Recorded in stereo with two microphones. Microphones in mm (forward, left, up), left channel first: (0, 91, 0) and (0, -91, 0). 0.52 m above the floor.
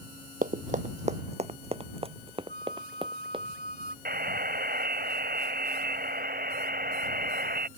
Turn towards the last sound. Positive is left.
turn(degrees=-70)  # may be behind; listen again after turning